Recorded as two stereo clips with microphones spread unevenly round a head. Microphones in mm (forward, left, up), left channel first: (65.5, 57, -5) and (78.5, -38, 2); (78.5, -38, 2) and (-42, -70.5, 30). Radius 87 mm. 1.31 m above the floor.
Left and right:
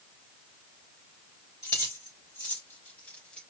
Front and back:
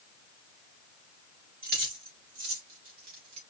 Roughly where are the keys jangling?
Behind.